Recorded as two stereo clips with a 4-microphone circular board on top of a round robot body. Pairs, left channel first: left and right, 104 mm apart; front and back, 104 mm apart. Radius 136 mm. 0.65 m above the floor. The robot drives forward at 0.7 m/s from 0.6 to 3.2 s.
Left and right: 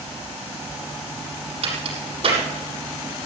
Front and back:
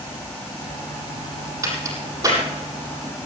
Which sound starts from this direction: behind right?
A crack, at 1.6 s.